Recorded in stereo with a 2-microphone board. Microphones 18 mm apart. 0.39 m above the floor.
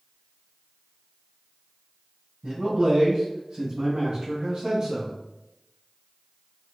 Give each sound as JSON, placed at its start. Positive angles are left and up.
{"t": 2.4, "sound": "a man speaking", "side_deg": -55, "distance_m": 1.7}